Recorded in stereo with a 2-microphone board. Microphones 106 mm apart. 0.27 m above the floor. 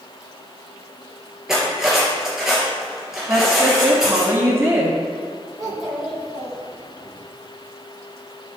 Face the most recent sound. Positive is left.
turn(degrees=0)  # may be behind; listen again after turning